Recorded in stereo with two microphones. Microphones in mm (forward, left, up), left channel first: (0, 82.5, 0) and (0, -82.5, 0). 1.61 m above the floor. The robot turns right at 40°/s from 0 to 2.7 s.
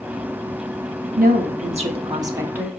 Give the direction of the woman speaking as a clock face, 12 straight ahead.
2 o'clock.